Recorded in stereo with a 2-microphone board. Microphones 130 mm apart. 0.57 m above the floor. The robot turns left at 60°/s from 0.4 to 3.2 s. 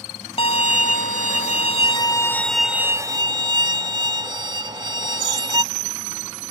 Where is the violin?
130° left; by 5.6 s 35° right.